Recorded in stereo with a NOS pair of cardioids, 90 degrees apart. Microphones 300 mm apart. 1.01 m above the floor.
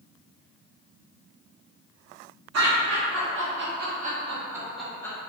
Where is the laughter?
60° right, 1.8 m; by 5.2 s 10° left, 1.4 m.